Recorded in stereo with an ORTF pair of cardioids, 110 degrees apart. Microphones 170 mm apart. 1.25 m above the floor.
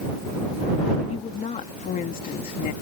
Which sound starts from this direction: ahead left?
A woman speaking, at 1.1 s.